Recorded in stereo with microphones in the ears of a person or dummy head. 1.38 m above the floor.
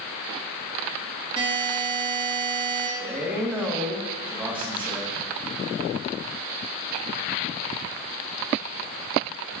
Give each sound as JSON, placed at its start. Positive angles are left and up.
{"t": 1.4, "sound": "a buzzer", "side_deg": -15, "distance_m": 1.8}
{"t": 3.0, "sound": "a man speaking", "side_deg": 0, "distance_m": 1.5}